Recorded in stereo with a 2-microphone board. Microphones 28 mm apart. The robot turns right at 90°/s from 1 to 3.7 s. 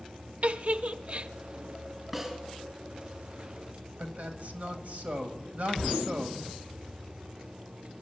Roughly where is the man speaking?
Right.